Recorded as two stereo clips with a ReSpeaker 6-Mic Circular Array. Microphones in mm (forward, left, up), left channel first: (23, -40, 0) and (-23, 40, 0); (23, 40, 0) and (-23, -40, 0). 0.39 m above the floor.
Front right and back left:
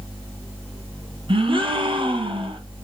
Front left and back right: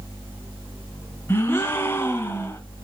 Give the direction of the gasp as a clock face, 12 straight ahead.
8 o'clock.